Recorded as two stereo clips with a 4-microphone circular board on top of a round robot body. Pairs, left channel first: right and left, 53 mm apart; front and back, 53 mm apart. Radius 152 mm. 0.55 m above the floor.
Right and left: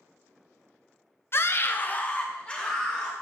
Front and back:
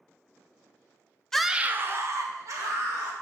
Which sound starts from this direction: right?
A scream, at 1.3 s.